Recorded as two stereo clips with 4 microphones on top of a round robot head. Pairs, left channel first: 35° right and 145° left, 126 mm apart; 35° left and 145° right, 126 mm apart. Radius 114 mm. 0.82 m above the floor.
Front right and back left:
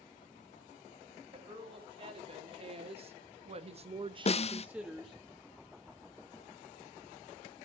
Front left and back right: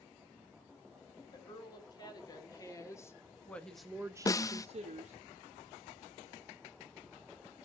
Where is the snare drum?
20° right, 0.7 m.